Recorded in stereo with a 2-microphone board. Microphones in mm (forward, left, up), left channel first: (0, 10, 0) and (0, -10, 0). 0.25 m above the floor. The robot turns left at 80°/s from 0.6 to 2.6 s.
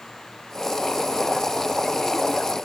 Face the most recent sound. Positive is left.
No sound to turn to.